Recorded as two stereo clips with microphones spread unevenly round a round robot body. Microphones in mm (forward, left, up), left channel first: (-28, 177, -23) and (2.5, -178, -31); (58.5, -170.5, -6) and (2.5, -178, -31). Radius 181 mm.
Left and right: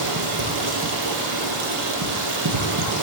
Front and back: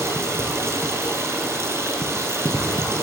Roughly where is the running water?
Behind right.